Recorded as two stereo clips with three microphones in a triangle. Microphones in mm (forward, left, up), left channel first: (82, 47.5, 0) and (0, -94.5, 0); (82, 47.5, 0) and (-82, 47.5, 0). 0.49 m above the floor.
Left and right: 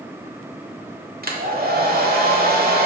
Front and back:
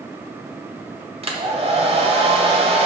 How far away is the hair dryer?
About 1.1 m.